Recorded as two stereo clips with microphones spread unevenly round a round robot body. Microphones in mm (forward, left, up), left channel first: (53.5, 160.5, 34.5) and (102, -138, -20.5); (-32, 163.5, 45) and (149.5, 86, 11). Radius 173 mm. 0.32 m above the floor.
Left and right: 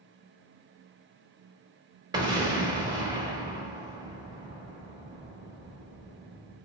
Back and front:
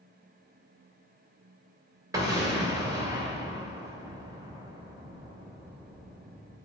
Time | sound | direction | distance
2.1 | an explosion | 45° right | 0.9 m